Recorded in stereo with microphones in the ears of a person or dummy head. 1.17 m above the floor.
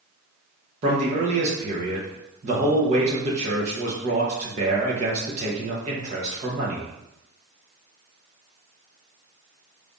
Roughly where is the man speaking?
Right.